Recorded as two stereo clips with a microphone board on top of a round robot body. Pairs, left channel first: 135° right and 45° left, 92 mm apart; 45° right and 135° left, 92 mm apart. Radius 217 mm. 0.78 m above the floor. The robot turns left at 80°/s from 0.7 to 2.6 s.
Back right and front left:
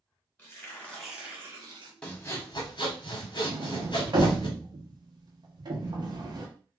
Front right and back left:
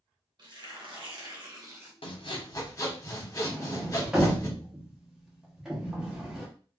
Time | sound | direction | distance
0.4 | tearing paper | 160° left | 1.5 m
2.0 | sawing | 55° right | 1.0 m
3.5 | a sliding door | 50° left | 1.1 m